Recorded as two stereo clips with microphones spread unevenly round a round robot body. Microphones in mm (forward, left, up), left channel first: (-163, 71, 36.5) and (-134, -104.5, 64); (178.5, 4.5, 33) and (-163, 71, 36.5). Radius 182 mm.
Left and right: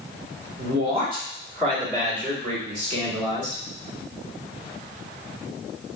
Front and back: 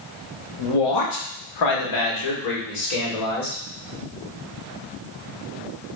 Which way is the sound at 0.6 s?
20° right.